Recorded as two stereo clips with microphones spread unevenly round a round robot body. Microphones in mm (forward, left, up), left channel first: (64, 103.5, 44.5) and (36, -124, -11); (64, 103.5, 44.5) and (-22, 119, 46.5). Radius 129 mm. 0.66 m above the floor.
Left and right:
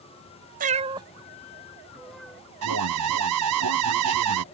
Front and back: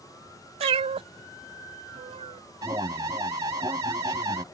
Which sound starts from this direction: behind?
A cat meowing, at 0.6 s.